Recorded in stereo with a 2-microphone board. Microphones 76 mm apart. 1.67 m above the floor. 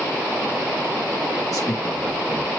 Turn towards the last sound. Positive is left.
turn(degrees=55)  # may be behind; listen again after turning